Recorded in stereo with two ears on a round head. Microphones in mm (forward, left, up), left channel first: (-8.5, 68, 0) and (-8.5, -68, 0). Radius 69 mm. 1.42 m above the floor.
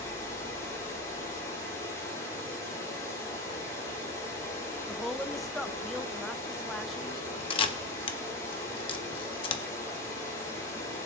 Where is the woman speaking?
Centre (ahead or behind), 0.6 m.